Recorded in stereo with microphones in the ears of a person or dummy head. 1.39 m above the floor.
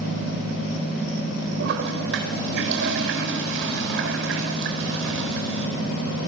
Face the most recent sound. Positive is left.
turn(degrees=-65)  # may be behind; listen again after turning